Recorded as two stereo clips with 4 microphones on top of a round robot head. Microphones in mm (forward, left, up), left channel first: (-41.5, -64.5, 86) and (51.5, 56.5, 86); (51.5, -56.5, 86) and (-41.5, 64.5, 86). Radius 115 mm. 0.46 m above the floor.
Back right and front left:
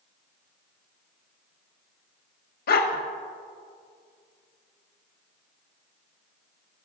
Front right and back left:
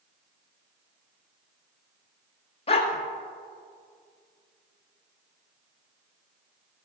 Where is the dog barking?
105° right, 1.0 m.